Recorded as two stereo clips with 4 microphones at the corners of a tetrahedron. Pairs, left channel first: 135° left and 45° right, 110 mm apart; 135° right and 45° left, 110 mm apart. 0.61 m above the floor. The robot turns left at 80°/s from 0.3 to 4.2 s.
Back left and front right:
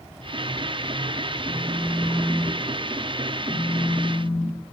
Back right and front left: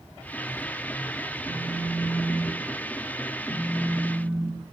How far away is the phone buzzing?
About 1.4 m.